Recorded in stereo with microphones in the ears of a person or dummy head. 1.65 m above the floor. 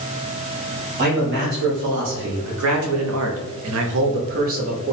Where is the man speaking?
50° right (ahead or behind), 1.8 m; by 4.9 s 35° right (ahead or behind), 1.0 m.